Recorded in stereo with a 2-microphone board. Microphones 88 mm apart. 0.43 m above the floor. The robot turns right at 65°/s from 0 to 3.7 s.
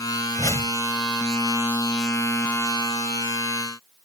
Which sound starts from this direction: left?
A whoosh, at 0.4 s.